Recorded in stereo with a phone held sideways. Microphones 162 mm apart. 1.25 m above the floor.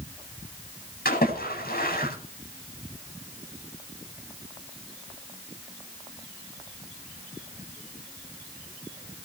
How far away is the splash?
About 9 m.